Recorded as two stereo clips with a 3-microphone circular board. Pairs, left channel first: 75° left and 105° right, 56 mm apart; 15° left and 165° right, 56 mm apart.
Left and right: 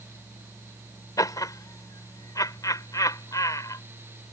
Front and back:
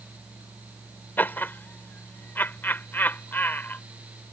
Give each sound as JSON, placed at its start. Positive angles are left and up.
{"t": 1.2, "sound": "laughter", "azimuth_deg": 70}